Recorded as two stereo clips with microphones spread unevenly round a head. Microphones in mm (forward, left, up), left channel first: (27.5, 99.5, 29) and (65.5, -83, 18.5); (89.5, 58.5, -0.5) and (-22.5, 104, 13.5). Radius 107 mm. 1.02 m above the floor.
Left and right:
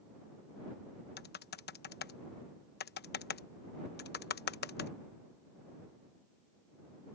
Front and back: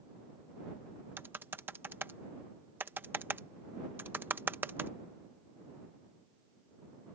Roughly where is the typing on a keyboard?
Left.